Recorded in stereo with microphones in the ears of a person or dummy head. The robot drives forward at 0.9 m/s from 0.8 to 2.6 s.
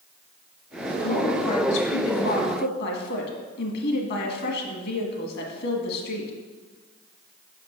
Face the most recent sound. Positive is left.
turn(degrees=60)  # may be behind; listen again after turning